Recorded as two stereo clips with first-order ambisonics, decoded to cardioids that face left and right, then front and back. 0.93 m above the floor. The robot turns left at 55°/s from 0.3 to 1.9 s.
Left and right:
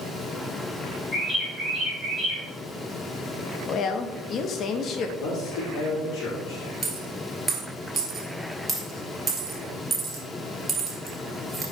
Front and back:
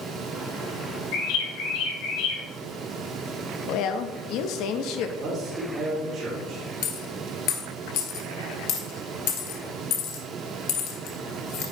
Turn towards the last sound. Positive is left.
turn(degrees=-15)